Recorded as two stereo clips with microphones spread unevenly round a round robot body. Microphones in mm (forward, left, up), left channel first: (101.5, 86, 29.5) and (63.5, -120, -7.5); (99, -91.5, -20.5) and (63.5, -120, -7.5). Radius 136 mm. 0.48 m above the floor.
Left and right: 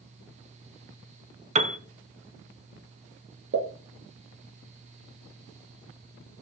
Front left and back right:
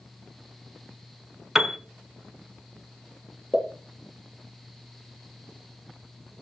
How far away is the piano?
About 1.2 m.